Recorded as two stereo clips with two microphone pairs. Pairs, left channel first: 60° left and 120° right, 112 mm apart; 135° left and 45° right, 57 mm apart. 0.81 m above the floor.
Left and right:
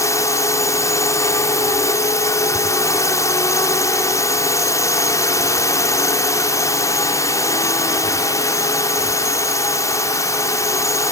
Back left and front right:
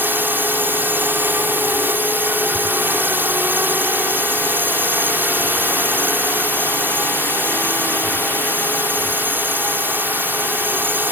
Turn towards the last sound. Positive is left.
turn(degrees=0)